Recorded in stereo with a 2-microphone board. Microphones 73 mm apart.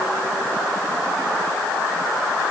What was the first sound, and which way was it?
Only background noise.